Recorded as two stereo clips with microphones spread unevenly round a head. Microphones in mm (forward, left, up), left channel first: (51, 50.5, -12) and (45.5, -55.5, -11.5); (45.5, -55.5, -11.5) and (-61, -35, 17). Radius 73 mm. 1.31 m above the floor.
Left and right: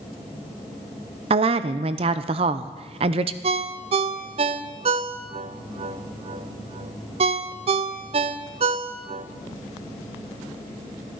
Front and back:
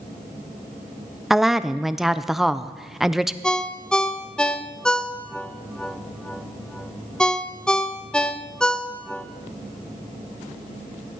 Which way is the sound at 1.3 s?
90° right.